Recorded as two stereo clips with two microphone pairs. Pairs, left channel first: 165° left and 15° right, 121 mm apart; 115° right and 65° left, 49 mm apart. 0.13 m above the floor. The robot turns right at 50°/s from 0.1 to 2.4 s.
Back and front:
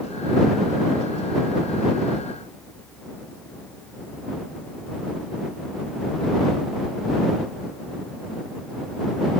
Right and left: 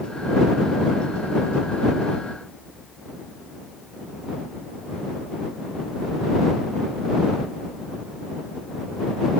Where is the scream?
I don't hear a scream.